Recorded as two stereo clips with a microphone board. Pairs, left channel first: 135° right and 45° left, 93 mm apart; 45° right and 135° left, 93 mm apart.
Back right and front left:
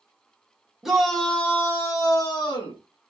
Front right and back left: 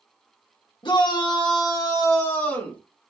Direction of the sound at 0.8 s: 40° right.